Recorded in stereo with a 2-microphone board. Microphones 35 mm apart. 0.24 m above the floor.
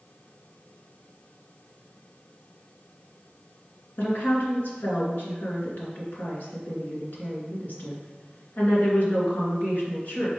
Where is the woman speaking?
60° left (ahead or behind), 2.5 m.